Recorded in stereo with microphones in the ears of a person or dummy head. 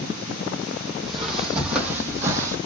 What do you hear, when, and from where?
1.0 s footsteps: 5° left (ahead or behind), 3.5 m; by 2.6 s 15° right (ahead or behind), 3 m